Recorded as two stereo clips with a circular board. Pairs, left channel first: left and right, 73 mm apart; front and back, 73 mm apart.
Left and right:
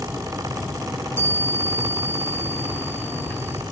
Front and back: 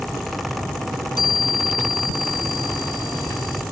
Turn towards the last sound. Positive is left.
turn(degrees=25)